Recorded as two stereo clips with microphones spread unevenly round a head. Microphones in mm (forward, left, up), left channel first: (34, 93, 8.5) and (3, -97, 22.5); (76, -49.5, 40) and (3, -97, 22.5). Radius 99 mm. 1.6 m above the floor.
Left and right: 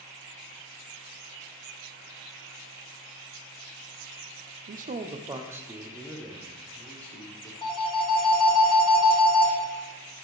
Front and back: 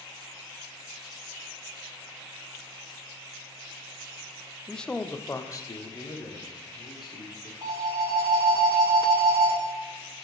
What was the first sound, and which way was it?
A man speaking, 55° right.